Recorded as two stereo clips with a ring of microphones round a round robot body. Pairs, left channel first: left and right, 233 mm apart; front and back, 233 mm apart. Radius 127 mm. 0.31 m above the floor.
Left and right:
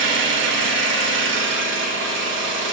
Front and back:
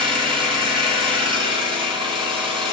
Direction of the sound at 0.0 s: 115° right.